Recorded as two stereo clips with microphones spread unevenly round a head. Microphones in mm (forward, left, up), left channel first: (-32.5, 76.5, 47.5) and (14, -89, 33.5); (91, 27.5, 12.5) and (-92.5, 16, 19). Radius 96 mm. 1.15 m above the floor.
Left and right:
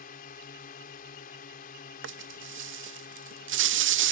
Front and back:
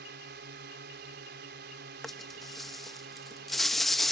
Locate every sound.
0.0 s a drone: 150° left
2.0 s a rattle: 85° right